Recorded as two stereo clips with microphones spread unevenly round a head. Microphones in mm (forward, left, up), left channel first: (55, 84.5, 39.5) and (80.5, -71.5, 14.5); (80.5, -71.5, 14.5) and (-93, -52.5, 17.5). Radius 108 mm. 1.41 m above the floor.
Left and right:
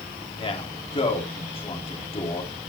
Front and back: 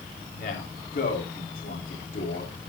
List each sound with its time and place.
0.3 s a man speaking: 50° left, 3.5 m